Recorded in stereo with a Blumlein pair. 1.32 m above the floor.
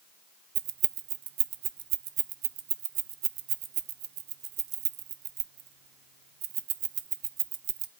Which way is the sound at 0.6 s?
40° right.